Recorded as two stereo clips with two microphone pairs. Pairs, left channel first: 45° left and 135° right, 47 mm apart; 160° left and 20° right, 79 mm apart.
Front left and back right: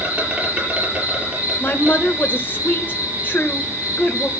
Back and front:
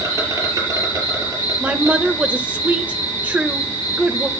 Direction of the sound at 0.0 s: 75° right.